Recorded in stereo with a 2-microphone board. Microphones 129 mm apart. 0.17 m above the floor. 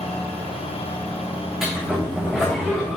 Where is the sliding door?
Centre (ahead or behind), 3 m.